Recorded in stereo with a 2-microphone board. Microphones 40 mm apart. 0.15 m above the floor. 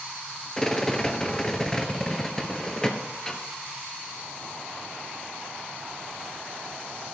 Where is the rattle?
15° left (ahead or behind), 1.1 m.